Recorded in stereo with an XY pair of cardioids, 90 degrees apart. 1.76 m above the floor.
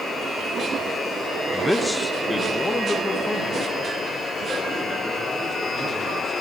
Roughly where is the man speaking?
Ahead.